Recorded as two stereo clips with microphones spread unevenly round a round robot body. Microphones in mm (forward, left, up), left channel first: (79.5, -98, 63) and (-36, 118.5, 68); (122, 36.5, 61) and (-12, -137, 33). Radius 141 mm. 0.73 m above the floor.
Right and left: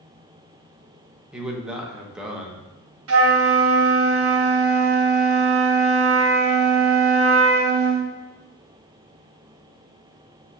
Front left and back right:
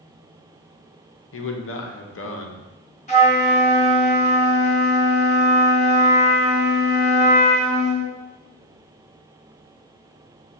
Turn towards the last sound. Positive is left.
turn(degrees=115)